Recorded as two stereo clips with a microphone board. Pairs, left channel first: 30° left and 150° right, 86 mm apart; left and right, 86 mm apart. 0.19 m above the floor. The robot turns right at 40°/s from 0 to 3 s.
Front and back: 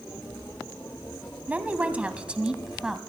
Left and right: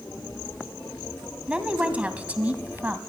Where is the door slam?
No door slam in this recording.